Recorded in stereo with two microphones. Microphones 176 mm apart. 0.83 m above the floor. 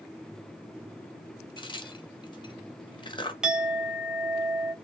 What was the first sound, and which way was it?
A crack, 25° left (ahead or behind).